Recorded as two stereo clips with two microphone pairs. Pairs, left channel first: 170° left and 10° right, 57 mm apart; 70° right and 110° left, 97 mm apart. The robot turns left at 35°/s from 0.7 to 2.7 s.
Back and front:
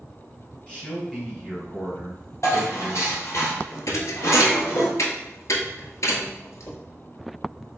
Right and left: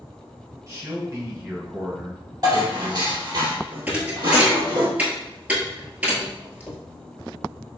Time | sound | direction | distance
0.7 | a man speaking | 115° left | 2.0 m
2.4 | dishes clattering | 155° left | 1.9 m
3.9 | a thud | straight behind | 0.8 m